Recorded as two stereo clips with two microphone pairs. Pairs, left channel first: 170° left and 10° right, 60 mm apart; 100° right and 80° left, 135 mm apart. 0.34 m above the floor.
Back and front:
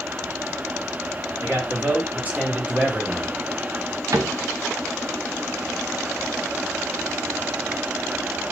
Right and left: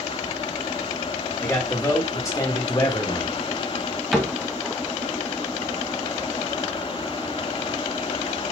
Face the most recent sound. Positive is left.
turn(degrees=-10)